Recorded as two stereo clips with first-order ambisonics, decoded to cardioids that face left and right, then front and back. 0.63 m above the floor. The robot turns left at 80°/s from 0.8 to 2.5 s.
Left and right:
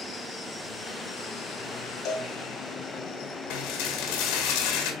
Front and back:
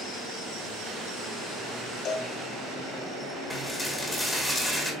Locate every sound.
2.0 s a cowbell: 50° left, 1.4 m; by 2.3 s 30° left, 1.4 m
3.5 s dishes clattering: 85° left, 1.7 m